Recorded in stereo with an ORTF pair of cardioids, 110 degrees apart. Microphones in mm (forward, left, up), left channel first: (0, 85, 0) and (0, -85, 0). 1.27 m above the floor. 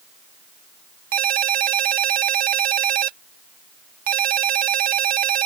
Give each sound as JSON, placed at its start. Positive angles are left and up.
{"t": 1.1, "sound": "a ringtone", "azimuth_deg": -55}